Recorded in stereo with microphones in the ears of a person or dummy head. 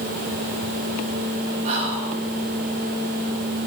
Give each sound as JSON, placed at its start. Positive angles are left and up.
{"t": 1.6, "sound": "whispering", "side_deg": -50, "distance_m": 8.5}